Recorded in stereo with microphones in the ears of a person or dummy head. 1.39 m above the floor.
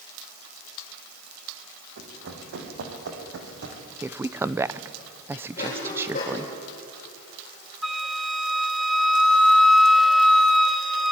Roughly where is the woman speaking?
Centre.